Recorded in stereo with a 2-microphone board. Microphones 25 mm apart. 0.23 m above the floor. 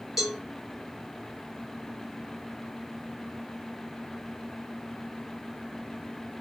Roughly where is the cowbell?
Centre.